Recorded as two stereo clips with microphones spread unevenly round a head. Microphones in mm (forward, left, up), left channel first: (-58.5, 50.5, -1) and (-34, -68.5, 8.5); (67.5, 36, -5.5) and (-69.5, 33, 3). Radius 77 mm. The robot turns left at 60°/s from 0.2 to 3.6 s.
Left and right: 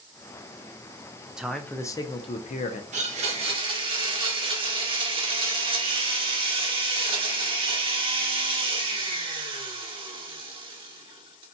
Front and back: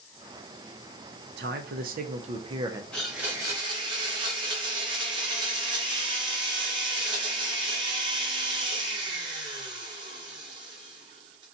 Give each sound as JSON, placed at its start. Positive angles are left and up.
{"t": 1.3, "sound": "a man speaking", "azimuth_deg": -160, "distance_m": 0.5}
{"t": 2.9, "sound": "a blender", "azimuth_deg": -80, "distance_m": 0.7}